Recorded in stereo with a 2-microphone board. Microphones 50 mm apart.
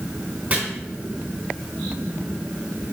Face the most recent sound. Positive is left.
turn(degrees=-30)  # may be behind; listen again after turning